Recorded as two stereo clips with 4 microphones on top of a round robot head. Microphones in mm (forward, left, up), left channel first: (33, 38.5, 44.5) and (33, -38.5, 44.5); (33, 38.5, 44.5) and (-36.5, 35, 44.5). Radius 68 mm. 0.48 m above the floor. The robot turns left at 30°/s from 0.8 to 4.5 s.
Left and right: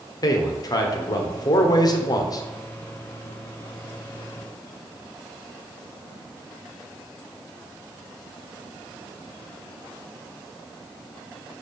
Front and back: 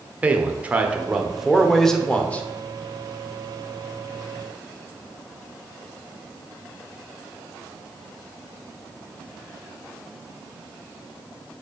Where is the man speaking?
115° left, 1.2 m; by 2.4 s 70° left, 1.2 m.